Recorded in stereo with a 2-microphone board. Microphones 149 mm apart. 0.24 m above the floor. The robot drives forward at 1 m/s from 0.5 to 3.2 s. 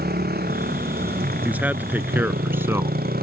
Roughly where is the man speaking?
Centre.